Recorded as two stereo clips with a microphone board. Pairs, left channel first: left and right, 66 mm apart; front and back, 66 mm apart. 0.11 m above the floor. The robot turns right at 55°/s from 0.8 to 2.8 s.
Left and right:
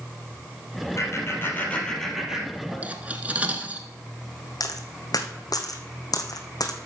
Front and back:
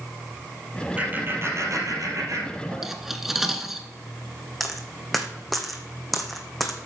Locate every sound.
1.0 s laughter: 115° left, 3 m; by 2.9 s 145° right, 3 m
2.8 s cutlery clinking: 100° right, 1.0 m
4.6 s a dropped coin: 90° left, 1.4 m